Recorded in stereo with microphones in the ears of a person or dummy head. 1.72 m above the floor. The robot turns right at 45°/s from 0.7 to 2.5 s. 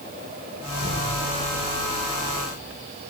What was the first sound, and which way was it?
An explosion, 25° right (ahead or behind).